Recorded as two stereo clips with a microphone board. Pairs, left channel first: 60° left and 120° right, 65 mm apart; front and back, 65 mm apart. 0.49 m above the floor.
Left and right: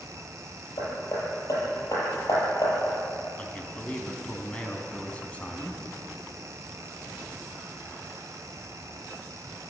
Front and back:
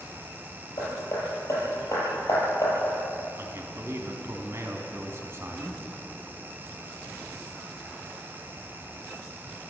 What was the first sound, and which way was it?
Hammering, 35° left.